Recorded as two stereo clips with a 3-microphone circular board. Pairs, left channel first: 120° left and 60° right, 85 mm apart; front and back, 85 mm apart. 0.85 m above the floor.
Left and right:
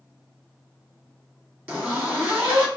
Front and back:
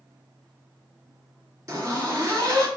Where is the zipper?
130° right, 1.7 m.